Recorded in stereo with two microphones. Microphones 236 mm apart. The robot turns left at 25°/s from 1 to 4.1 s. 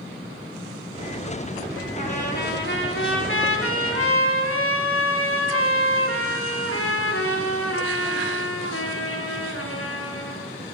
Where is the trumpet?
145° left, 2.5 m; by 10.4 s 95° left, 2.5 m.